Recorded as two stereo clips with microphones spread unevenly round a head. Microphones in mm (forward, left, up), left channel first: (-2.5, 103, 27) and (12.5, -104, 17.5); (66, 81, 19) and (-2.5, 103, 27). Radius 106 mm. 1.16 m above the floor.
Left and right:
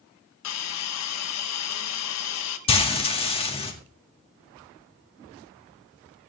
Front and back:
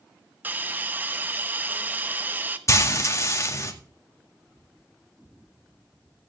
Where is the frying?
30° left, 2 m.